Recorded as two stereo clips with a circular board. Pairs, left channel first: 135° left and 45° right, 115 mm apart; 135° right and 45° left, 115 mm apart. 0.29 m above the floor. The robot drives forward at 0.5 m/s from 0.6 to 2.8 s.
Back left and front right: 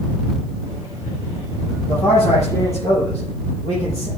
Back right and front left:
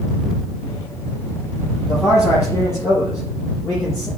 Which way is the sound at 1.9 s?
160° left.